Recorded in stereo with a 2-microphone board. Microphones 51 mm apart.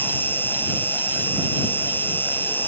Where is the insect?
45° left (ahead or behind).